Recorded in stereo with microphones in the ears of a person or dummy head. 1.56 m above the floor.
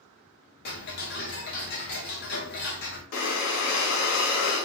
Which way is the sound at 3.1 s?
60° left (ahead or behind).